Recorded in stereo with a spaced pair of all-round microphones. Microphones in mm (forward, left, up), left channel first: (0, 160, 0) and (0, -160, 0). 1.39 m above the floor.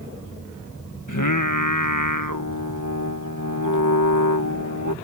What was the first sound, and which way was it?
Singing, 75° left (ahead or behind).